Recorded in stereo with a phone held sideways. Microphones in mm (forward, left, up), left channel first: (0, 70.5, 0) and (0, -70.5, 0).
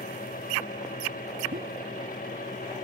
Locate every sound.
0.0 s a fan: 85° left
1.5 s a pop: 90° right